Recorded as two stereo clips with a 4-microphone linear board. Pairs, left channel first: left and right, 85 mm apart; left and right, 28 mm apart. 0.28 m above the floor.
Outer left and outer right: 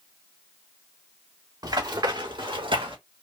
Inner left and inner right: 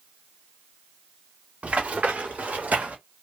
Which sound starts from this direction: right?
Running footsteps, at 1.6 s.